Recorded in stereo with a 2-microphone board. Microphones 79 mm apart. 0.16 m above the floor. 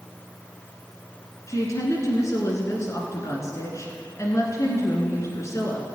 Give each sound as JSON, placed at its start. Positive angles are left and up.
{"t": 1.5, "sound": "a woman speaking", "side_deg": 40, "distance_m": 1.7}